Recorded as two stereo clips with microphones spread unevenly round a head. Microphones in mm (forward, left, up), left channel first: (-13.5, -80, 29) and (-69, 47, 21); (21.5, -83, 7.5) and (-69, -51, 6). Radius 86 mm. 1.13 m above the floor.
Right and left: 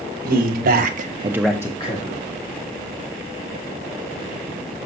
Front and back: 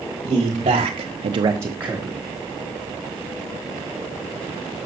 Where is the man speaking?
95° left, 1.6 m; by 2.2 s 115° right, 1.4 m.